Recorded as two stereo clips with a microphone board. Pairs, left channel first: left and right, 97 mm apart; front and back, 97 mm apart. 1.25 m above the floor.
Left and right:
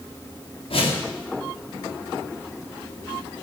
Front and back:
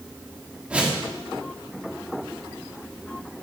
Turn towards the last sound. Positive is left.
turn(degrees=100)